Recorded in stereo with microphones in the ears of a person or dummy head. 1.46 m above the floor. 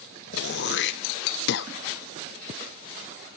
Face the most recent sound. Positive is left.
turn(degrees=60)  # may be behind; listen again after turning